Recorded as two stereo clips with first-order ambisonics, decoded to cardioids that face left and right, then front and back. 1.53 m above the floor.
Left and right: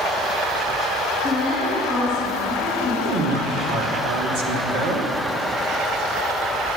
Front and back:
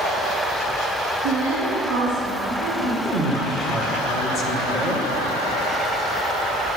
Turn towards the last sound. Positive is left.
turn(degrees=-110)